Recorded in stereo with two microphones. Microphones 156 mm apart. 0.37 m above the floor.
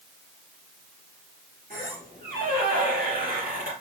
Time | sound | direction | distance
1.7 | a squeak | 75° right (ahead or behind) | 3 m